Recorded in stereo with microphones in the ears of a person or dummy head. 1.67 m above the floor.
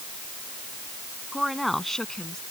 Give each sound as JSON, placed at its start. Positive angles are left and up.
{"t": 1.3, "sound": "a woman speaking", "side_deg": 0}